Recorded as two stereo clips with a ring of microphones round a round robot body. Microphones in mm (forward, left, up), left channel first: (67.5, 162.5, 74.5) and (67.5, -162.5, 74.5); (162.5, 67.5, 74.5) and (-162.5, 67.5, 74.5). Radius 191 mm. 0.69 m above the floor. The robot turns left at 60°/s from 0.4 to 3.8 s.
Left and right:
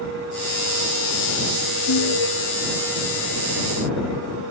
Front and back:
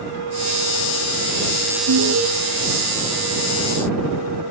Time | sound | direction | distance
1.9 | an alarm | 145° left | ?